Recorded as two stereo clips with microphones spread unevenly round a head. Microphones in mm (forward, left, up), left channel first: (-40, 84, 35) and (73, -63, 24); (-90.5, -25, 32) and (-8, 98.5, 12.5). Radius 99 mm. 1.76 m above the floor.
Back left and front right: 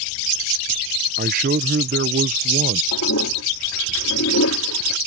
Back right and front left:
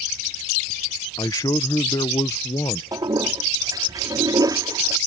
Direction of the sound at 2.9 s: 125° left.